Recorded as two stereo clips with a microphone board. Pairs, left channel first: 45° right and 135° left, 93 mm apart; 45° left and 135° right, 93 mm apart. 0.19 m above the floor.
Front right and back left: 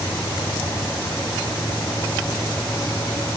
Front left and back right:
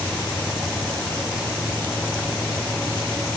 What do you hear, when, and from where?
Only background noise.